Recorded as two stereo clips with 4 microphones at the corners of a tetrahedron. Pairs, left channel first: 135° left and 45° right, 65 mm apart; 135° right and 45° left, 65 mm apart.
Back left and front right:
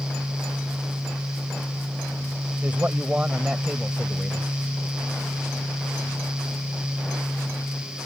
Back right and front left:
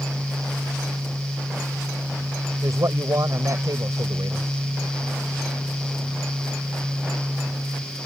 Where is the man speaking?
20° left; by 4.5 s 40° left.